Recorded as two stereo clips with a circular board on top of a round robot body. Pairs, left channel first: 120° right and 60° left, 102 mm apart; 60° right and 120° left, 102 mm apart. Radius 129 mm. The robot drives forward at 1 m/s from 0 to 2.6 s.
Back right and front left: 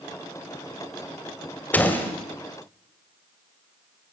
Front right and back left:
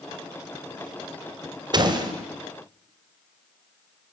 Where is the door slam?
165° left, 2.5 m.